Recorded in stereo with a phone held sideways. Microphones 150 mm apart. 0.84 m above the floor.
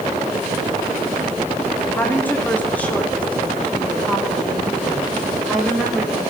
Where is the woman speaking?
15° left (ahead or behind), 2.5 m; by 6.2 s centre (ahead or behind), 5 m.